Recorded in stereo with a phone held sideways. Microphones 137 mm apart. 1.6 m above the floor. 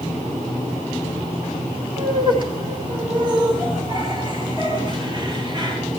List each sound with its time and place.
2.0 s laughter: 35° right (ahead or behind), 3 m